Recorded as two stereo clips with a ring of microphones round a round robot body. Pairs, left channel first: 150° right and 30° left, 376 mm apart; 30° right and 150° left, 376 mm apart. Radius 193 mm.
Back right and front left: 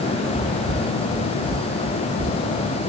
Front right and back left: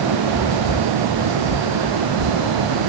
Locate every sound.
0.3 s footsteps: 65° right, 3.5 m; by 2.7 s 35° right, 6 m